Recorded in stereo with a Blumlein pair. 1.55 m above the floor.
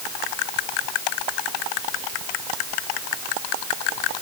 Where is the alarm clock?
I don't hear an alarm clock.